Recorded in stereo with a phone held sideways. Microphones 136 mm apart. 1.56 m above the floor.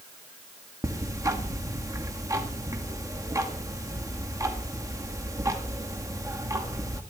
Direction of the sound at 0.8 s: 25° right (ahead or behind).